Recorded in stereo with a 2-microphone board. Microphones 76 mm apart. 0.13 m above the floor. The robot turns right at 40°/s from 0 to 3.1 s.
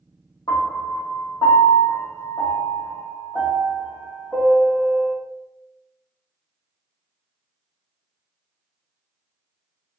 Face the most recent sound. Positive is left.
turn(degrees=-5)  # may be behind; listen again after turning